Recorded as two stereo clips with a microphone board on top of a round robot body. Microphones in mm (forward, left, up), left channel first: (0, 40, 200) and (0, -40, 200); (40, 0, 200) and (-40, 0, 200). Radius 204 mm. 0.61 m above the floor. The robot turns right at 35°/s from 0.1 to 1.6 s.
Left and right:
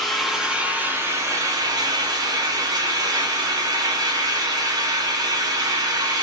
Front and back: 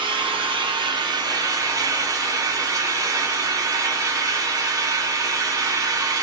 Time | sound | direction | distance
0.0 | an engine running | 175° left | 0.8 m